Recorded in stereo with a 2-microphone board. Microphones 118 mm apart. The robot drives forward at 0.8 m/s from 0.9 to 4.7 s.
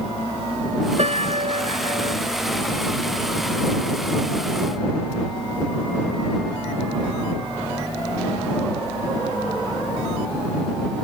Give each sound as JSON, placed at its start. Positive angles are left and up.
{"t": 1.0, "sound": "a piano", "side_deg": -65}